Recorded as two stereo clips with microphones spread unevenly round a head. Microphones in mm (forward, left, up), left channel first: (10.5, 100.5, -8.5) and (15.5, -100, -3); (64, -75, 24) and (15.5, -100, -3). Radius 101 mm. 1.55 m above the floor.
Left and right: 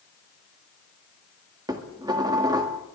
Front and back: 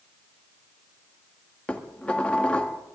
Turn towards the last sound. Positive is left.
turn(degrees=-20)